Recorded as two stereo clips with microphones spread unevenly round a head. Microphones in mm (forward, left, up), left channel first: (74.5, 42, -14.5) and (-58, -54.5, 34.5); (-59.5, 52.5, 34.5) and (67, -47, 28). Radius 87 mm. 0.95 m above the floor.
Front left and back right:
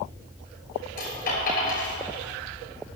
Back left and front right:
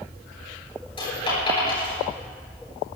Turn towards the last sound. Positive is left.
turn(degrees=80)